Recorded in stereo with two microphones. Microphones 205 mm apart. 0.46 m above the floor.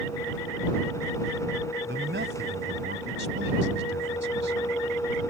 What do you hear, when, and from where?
1.8 s a man speaking: 75° right (ahead or behind)